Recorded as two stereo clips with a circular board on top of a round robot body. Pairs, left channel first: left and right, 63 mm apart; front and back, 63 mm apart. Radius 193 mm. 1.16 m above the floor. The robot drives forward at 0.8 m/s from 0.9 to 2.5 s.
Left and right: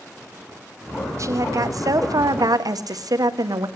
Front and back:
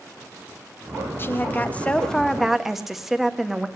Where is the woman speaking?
55° right, 1.6 m; by 3.7 s 95° right, 1.4 m.